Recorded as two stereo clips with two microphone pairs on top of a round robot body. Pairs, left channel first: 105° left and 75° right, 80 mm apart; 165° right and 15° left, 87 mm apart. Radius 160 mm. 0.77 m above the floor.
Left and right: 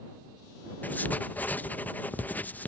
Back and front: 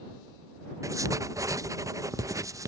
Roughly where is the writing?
Ahead left.